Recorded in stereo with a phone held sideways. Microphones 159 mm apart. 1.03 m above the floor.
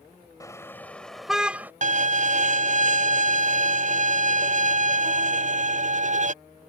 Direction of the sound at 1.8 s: 45° right (ahead or behind).